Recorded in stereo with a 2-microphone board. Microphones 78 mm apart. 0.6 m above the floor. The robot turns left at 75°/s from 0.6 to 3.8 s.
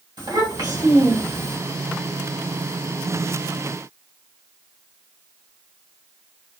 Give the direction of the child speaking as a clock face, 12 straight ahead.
4 o'clock.